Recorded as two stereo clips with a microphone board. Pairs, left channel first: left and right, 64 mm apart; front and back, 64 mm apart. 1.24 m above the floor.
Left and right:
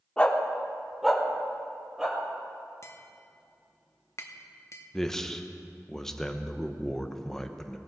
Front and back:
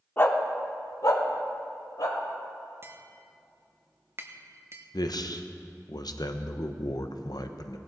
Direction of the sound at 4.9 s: 5° left.